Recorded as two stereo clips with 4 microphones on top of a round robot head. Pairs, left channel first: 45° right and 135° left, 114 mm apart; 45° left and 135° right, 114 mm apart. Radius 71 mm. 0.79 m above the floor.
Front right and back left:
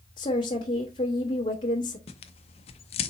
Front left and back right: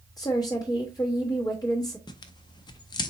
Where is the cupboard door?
I don't hear a cupboard door.